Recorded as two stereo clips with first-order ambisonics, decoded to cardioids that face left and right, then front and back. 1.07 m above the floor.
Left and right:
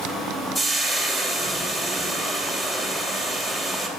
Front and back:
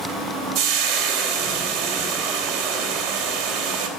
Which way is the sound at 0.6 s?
170° left.